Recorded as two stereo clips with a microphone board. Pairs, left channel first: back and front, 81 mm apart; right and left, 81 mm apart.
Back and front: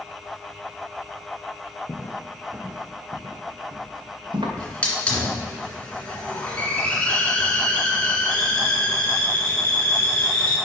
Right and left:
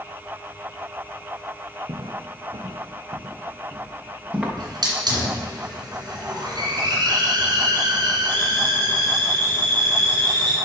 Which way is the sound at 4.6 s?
105° left.